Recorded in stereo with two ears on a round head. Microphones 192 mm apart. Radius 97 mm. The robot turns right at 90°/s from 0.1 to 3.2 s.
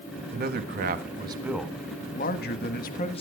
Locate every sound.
0.3 s a man speaking: 115° right, 1.4 m; by 3.2 s 145° left, 1.4 m